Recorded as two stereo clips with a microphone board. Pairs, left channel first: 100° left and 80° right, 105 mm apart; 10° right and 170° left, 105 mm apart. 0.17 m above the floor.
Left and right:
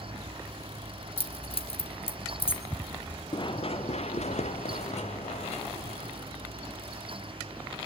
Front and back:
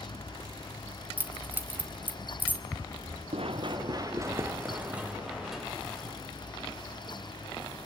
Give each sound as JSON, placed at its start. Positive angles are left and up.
{"t": 1.2, "sound": "keys jangling", "azimuth_deg": 100, "distance_m": 1.7}
{"t": 3.3, "sound": "running footsteps", "azimuth_deg": 145, "distance_m": 1.6}